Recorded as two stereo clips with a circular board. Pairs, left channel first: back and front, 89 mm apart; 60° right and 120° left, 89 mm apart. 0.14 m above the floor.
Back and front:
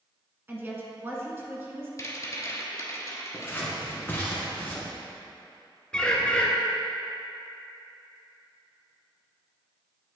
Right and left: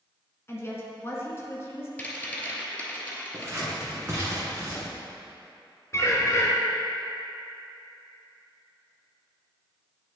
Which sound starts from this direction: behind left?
Scissors, at 3.3 s.